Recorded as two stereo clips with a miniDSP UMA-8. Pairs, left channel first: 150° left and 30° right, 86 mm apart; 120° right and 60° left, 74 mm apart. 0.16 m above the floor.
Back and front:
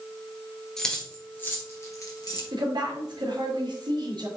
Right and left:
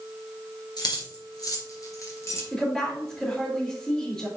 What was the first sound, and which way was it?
Keys jangling, 125° right.